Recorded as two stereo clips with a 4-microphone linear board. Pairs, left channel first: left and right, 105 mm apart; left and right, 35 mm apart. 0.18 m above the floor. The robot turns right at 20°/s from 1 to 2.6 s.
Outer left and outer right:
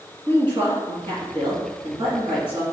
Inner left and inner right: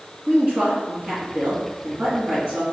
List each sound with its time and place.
0.3 s a woman speaking: 115° right, 1.8 m; by 2.6 s 85° right, 1.8 m